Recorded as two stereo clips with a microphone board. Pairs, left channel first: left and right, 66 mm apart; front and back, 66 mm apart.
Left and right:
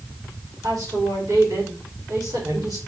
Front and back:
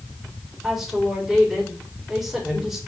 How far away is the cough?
I don't hear a cough.